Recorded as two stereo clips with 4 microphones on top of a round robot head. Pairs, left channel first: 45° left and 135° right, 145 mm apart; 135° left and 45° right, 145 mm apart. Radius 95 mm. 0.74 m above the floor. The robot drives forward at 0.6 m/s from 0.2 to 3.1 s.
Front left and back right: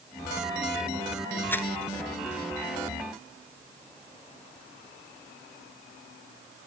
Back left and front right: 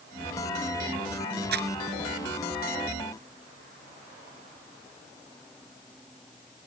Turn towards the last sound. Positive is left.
turn(degrees=-35)